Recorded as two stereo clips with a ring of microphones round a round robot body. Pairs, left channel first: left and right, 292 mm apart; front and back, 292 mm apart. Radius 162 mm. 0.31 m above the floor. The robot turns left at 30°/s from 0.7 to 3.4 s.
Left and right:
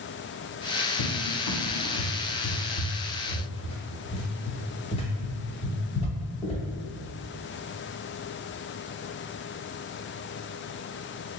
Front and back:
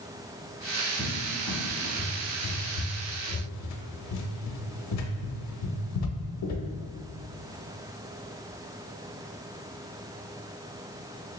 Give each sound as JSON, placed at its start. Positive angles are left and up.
{"t": 1.0, "sound": "a cupboard door", "azimuth_deg": 90, "distance_m": 0.5}